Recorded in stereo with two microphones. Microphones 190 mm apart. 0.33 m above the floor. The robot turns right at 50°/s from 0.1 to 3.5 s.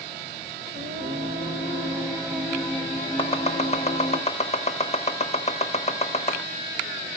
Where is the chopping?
25° left (ahead or behind), 0.9 m; by 6.4 s 35° left (ahead or behind), 0.9 m.